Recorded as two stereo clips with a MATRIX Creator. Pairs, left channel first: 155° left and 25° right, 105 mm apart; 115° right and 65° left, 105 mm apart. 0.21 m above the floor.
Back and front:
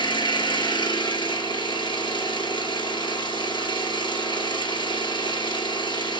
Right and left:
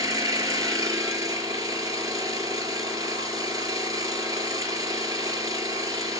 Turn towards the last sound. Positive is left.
turn(degrees=120)